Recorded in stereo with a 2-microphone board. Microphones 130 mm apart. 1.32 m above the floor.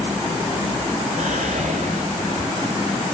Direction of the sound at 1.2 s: 85° right.